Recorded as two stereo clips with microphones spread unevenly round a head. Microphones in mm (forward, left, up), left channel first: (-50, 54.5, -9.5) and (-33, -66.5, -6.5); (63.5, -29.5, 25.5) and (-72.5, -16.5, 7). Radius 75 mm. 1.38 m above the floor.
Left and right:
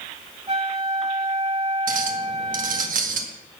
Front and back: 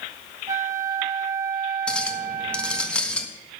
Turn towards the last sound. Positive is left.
turn(degrees=-85)